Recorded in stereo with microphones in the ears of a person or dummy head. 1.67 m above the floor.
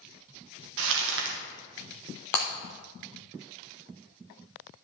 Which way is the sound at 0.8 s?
70° right (ahead or behind).